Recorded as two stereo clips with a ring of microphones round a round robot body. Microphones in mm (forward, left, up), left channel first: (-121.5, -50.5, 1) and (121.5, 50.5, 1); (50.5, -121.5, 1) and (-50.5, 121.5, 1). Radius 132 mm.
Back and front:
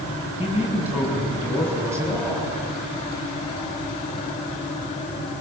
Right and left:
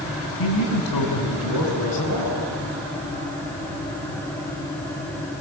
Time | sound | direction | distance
0.4 | a man speaking | 65° right | 6 m